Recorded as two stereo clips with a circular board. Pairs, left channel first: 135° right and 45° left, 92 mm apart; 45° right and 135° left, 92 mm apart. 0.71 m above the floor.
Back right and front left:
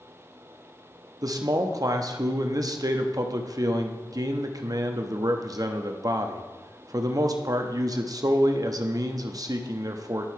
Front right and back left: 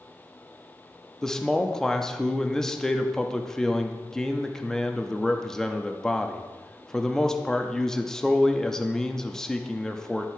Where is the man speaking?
35° left, 0.6 m.